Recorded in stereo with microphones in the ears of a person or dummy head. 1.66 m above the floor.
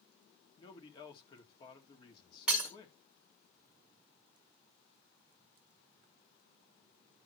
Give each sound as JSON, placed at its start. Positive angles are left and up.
{"t": 0.6, "sound": "a man speaking", "side_deg": 30, "distance_m": 2.0}
{"t": 2.5, "sound": "breaking glass", "side_deg": -10, "distance_m": 1.6}